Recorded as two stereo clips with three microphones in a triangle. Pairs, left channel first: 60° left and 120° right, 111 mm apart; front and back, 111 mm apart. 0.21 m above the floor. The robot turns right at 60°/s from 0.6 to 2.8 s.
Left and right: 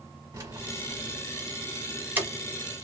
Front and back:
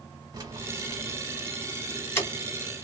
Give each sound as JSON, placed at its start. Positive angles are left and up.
{"t": 0.3, "sound": "keys jangling", "azimuth_deg": -150, "distance_m": 1.2}